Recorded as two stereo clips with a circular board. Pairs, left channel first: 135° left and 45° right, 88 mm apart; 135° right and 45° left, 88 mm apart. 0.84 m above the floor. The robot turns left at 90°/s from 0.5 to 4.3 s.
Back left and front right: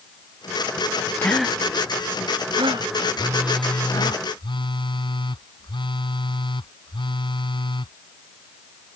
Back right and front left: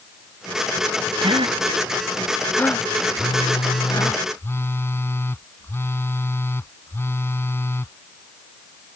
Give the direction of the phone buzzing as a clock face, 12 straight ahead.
3 o'clock.